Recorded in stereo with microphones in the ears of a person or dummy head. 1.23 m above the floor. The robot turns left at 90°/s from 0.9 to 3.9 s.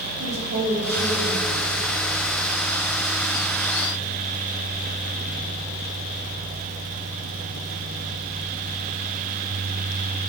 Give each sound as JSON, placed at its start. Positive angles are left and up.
{"t": 0.2, "sound": "a woman speaking", "azimuth_deg": -130, "distance_m": 2.5}